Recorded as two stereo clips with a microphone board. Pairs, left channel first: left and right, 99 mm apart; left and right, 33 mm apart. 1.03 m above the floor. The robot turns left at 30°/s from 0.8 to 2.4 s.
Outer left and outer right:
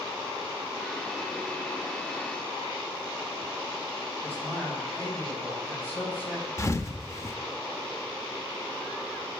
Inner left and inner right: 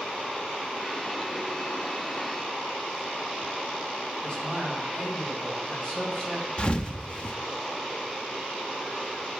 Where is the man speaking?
20° left (ahead or behind), 7 m.